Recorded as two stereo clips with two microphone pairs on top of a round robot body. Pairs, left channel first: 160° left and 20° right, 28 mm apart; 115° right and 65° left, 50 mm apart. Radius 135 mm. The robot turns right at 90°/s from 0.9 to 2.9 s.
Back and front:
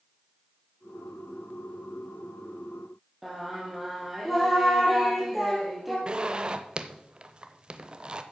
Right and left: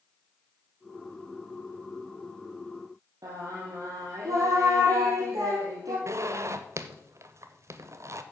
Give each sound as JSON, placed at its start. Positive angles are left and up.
{"t": 3.2, "sound": "singing", "azimuth_deg": 60, "distance_m": 2.0}
{"t": 6.1, "sound": "a zipper", "azimuth_deg": 35, "distance_m": 0.6}